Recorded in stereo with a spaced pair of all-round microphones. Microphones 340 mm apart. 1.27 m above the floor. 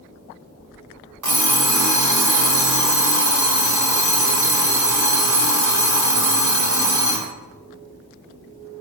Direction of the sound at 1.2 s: 60° right (ahead or behind).